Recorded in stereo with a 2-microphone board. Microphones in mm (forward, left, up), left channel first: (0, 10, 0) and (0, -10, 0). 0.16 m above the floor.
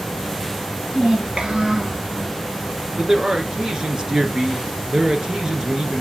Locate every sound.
0.9 s a child speaking: 65° right (ahead or behind), 2.5 m; by 2.0 s 25° right (ahead or behind), 1.7 m
3.0 s a man speaking: 40° right (ahead or behind), 2.5 m